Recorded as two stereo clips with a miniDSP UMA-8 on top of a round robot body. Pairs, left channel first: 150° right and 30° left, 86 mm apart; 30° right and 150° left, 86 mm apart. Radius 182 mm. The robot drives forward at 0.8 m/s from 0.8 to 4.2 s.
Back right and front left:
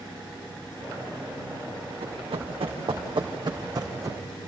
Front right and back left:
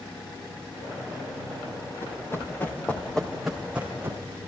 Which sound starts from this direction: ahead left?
Running footsteps, at 2.0 s.